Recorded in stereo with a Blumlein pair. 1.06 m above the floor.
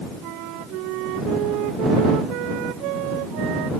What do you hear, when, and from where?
0.2 s a flute: 40° right